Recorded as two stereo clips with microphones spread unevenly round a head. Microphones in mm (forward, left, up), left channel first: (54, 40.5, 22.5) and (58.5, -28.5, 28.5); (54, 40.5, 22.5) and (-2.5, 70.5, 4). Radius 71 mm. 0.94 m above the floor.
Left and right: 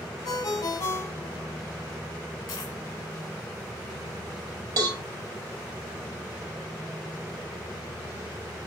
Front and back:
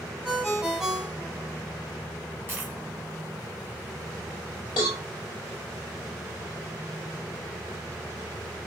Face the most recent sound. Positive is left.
turn(degrees=-80)